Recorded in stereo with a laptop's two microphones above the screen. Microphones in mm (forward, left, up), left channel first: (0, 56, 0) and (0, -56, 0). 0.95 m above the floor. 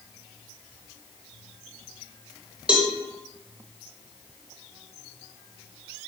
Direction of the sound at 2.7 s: 10° right (ahead or behind).